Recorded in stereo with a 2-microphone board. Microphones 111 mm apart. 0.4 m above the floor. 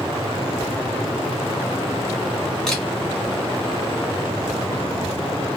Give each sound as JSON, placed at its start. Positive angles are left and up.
{"t": 2.7, "sound": "a camera shutter", "side_deg": 5, "distance_m": 2.0}